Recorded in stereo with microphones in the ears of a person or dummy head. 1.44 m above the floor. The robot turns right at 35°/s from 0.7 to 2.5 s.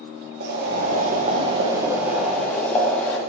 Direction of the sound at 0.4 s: 55° right.